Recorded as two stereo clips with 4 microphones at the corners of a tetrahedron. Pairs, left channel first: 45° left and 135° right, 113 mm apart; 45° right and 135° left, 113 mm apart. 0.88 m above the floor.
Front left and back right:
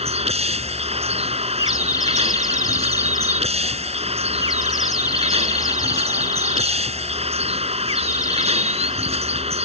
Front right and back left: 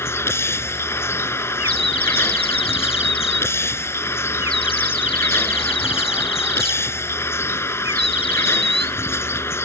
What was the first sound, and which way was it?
A vehicle, 115° right.